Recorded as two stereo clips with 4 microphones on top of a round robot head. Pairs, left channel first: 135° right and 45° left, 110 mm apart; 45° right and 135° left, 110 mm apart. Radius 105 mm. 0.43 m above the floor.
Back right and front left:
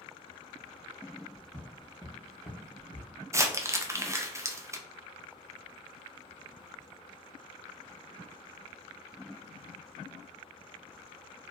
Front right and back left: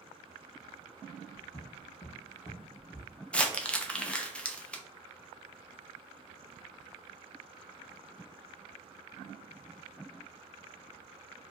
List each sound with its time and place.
1.3 s footsteps: 5° left, 0.7 m; by 3.1 s 110° right, 0.8 m
3.3 s crumpling: 25° left, 0.5 m